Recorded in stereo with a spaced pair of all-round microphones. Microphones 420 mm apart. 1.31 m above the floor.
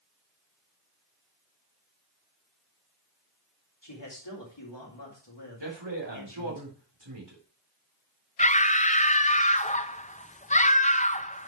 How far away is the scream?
About 0.5 m.